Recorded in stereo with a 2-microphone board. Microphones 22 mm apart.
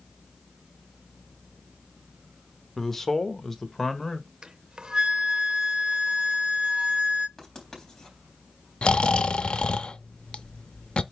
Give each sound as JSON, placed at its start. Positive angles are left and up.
{"t": 2.8, "sound": "a man speaking", "side_deg": 10, "distance_m": 1.0}
{"t": 4.4, "sound": "a flute", "side_deg": -35, "distance_m": 0.6}
{"t": 7.4, "sound": "writing", "side_deg": 20, "distance_m": 3.5}
{"t": 8.8, "sound": "snoring", "side_deg": 50, "distance_m": 0.6}